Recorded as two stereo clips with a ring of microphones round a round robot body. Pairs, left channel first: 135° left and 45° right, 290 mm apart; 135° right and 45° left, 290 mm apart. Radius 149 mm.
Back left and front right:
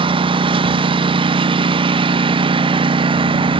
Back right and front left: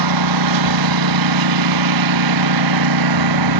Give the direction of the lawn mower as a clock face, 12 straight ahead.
11 o'clock.